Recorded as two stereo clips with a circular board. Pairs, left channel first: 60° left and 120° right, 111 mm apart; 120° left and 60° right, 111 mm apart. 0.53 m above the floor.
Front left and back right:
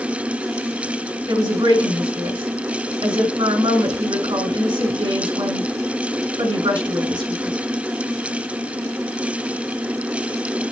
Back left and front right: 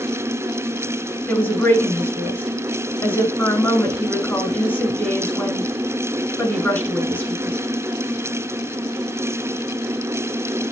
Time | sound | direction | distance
1.3 | a woman speaking | 165° right | 5 m